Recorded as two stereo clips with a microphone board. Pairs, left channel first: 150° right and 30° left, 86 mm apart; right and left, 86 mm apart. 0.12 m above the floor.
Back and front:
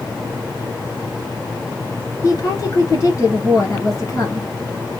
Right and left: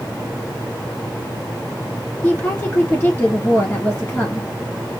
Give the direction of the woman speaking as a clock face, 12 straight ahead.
5 o'clock.